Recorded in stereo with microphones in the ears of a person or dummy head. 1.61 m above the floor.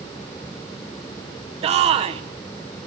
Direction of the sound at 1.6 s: 30° right (ahead or behind).